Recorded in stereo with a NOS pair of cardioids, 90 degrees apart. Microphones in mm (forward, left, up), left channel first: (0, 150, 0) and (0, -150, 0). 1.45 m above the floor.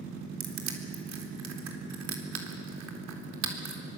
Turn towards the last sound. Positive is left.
turn(degrees=-65)